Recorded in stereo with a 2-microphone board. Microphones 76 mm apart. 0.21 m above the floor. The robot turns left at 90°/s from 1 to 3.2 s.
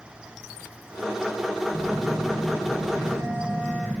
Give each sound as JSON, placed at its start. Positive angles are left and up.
{"t": 1.7, "sound": "a phone buzzing", "azimuth_deg": -5, "distance_m": 5.0}